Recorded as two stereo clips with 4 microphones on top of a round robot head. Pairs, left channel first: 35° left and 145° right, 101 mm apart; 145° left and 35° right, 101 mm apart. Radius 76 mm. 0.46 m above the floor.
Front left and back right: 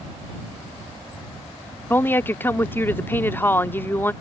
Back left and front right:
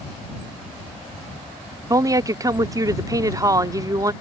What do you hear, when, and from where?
1.9 s a woman speaking: 20° right